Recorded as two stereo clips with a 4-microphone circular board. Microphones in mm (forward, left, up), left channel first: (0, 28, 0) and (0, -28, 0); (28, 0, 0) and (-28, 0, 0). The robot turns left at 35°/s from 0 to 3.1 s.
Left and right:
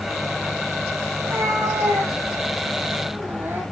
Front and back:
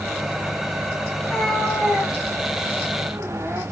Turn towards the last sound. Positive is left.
turn(degrees=-140)